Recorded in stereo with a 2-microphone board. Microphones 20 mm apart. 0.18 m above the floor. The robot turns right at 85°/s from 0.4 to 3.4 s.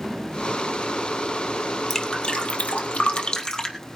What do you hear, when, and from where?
1.9 s dripping: 15° left (ahead or behind), 1.6 m; by 3.8 s 35° left (ahead or behind), 1.6 m